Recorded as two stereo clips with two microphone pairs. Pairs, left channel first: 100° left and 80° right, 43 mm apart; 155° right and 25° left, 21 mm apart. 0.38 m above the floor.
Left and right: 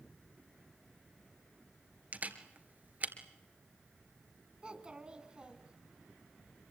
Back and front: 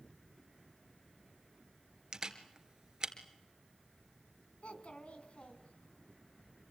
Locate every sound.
2.1 s a camera shutter: 25° right, 2 m
4.6 s a child speaking: 145° right, 2.5 m